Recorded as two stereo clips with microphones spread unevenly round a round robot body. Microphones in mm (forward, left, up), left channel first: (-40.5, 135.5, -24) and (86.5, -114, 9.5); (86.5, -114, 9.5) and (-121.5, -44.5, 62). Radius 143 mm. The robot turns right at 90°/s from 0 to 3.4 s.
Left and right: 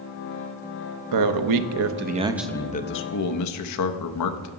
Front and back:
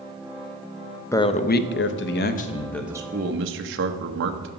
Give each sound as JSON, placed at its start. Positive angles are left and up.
{"t": 1.1, "sound": "a man speaking", "azimuth_deg": -90, "distance_m": 0.7}